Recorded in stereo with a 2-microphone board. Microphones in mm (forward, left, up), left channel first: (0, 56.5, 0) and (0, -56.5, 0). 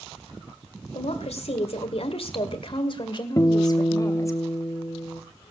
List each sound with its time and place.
0.9 s a woman speaking: 65° left (ahead or behind), 2 m; by 4.4 s 25° left (ahead or behind), 2.5 m
3.4 s a guitar: 30° left (ahead or behind), 0.9 m